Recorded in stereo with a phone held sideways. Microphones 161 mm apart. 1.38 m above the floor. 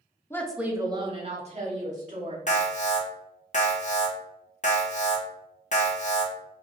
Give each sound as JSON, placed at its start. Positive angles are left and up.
{"t": 0.3, "sound": "a woman speaking", "side_deg": 15, "distance_m": 0.5}
{"t": 2.5, "sound": "an alarm", "side_deg": 50, "distance_m": 0.7}